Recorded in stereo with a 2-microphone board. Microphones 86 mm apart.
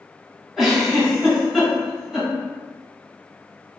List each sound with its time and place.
0.6 s a giggle: centre (ahead or behind), 2.0 m